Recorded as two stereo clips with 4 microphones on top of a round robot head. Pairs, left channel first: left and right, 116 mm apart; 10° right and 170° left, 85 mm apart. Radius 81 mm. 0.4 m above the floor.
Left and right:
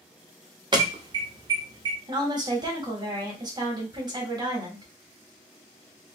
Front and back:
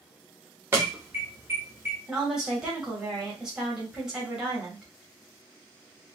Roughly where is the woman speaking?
Right.